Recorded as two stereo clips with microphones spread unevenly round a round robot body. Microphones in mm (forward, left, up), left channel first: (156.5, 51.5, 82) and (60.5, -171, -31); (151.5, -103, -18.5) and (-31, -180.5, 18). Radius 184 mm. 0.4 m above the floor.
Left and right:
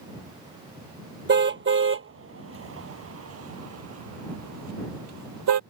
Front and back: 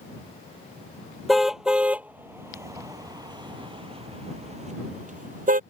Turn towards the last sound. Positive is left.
turn(degrees=-110)